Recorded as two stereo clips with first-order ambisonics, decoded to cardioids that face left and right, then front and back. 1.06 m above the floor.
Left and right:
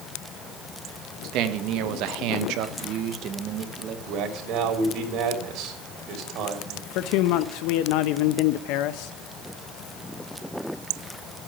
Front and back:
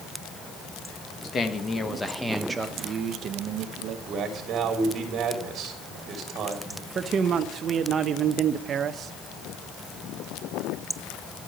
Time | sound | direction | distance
1.2 | a man speaking | 60° right | 1.5 m
4.1 | a man speaking | 125° right | 3 m
7.0 | a man speaking | 115° left | 0.7 m